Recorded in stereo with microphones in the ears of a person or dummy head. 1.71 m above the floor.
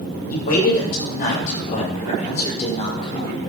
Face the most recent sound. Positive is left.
turn(degrees=30)  # may be behind; listen again after turning